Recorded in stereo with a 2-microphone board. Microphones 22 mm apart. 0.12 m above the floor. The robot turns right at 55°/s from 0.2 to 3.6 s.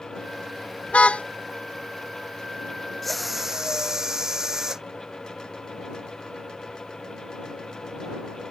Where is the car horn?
75° left (ahead or behind); by 1.2 s 55° left (ahead or behind).